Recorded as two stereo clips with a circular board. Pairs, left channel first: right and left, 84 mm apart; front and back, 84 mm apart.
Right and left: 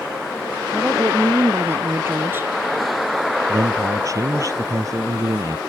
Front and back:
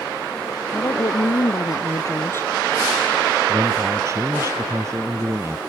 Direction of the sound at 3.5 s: 135° left.